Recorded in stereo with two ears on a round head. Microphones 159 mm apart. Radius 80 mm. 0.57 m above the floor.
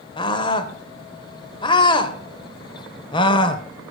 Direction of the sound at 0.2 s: 30° left (ahead or behind).